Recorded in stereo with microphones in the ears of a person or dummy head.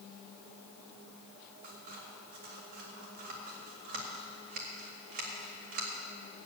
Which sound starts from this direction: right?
Scissors, at 1.6 s.